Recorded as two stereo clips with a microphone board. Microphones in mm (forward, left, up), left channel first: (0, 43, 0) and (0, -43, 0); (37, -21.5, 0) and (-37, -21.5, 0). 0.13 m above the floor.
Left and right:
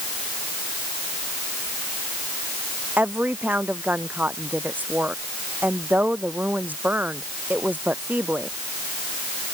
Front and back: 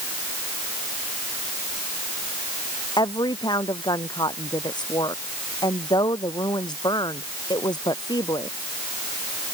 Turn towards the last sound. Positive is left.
turn(degrees=-20)